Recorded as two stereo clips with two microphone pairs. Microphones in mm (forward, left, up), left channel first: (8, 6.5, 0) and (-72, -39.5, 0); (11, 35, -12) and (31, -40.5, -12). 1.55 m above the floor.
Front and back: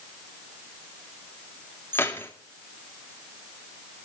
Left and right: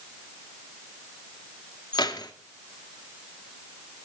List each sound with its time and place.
1.9 s keys jangling: 95° left, 2.0 m